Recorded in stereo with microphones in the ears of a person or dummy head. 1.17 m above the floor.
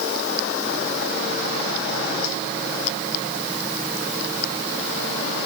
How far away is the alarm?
No alarm in this recording.